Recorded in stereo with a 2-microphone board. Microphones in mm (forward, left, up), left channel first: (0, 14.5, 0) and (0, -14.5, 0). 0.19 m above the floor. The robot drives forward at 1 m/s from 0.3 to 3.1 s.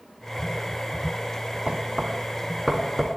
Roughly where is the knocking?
Right.